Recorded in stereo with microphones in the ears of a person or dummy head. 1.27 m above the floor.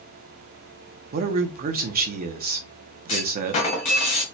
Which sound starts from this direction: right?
A man speaking, at 1.1 s.